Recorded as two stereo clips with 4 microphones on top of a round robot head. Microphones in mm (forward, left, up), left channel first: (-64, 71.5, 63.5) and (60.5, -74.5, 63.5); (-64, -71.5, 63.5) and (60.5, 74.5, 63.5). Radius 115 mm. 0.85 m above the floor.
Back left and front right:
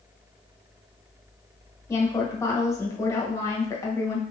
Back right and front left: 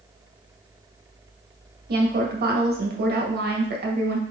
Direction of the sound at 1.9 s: 60° left.